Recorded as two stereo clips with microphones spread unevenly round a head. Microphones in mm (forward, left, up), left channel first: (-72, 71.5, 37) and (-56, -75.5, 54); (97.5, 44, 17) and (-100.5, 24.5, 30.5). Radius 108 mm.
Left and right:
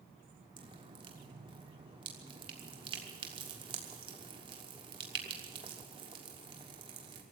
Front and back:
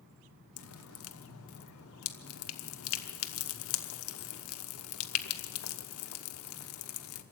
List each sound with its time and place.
0.6 s dripping: 20° right, 1.0 m